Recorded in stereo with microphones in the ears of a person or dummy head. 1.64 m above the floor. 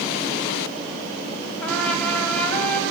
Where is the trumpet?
10° left (ahead or behind), 3 m.